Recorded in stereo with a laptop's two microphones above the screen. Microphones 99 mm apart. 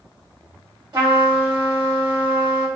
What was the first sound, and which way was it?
A trumpet, 45° right (ahead or behind).